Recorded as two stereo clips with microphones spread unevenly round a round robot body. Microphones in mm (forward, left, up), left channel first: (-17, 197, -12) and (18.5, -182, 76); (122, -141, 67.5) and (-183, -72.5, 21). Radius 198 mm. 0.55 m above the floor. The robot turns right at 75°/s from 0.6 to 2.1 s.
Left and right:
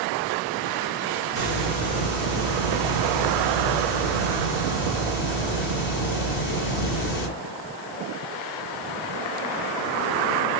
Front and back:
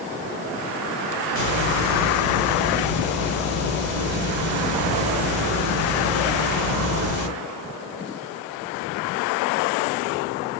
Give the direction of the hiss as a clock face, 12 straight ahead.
1 o'clock.